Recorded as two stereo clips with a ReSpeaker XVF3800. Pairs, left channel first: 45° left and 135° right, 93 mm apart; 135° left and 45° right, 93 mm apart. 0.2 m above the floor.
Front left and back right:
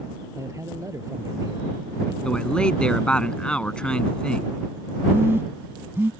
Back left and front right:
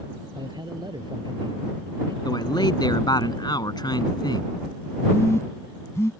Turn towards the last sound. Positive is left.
turn(degrees=175)